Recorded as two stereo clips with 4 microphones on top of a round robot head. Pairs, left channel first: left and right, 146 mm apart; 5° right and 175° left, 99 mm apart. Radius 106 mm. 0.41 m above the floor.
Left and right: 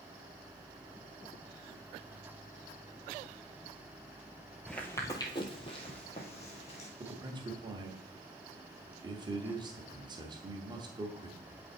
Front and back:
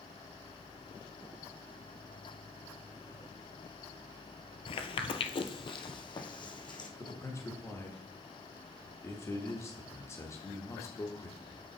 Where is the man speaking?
50° right, 1.0 m.